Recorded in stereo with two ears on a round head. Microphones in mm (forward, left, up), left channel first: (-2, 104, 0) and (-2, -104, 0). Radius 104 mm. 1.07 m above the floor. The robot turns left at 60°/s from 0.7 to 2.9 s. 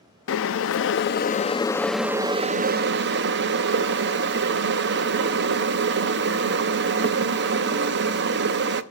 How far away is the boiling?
About 0.7 m.